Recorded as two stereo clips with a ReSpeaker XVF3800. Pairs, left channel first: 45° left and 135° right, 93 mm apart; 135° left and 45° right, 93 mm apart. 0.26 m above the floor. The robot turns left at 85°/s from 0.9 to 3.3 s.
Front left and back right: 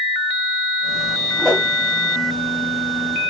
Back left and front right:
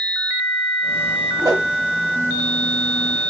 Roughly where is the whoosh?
Ahead right.